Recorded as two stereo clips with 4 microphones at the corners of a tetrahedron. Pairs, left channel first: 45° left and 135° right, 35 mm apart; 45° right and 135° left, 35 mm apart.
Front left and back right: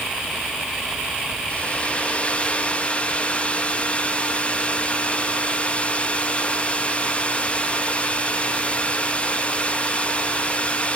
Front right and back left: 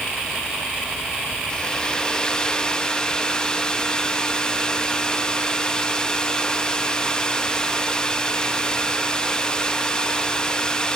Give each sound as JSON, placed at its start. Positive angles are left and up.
{"t": 1.5, "sound": "a hair dryer", "azimuth_deg": 15, "distance_m": 1.0}